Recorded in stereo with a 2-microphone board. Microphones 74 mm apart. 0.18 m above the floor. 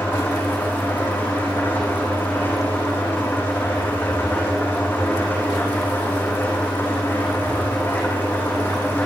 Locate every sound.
0.0 s an engine running: 30° left (ahead or behind), 7.5 m